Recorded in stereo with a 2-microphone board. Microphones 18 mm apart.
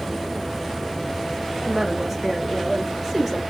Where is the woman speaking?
30° right (ahead or behind), 1.3 m.